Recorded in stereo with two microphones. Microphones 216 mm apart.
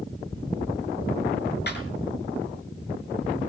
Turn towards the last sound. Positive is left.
turn(degrees=50)  # may be behind; listen again after turning